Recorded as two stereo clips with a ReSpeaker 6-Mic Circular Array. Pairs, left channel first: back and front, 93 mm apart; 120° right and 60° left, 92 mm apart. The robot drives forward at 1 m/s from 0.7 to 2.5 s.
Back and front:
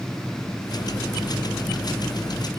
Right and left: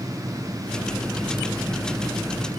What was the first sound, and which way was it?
Only background noise.